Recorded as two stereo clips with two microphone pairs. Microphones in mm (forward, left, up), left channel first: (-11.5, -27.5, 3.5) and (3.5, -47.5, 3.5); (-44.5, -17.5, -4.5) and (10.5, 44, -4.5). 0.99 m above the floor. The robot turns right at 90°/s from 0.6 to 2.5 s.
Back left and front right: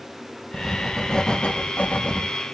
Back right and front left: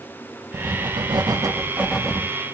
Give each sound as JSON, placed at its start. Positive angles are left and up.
{"t": 0.5, "sound": "writing", "azimuth_deg": 10, "distance_m": 1.6}